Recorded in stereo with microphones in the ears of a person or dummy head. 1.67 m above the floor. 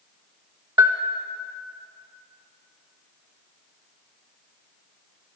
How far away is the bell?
About 0.5 m.